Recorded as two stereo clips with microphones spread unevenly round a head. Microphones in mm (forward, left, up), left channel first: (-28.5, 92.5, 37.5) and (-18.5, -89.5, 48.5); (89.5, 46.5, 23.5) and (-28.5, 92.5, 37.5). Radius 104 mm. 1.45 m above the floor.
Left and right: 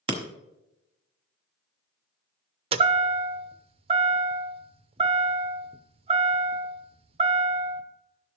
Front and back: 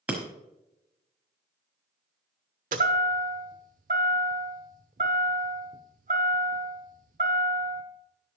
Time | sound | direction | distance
0.1 | breaking glass | 130° right | 1.1 m
2.7 | a chime | 150° right | 0.7 m